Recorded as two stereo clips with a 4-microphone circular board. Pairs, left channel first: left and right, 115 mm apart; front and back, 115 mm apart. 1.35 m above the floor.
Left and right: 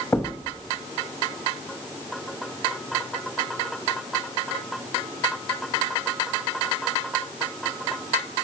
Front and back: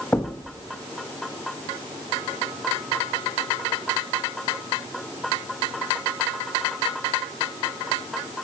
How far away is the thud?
About 0.7 m.